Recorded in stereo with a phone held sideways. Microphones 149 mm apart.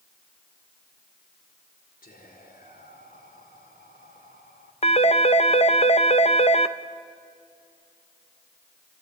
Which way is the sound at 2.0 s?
70° left (ahead or behind).